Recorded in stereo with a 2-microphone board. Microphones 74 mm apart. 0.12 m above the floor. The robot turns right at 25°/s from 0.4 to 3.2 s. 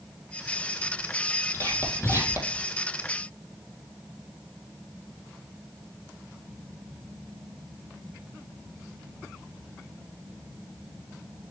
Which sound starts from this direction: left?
Whispering, at 1.5 s.